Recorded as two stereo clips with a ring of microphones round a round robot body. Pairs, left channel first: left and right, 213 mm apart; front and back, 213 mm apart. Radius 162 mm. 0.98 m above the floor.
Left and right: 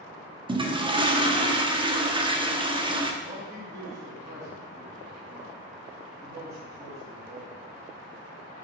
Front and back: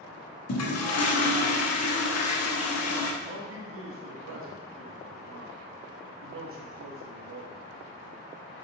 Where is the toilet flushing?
20° right, 1.2 m.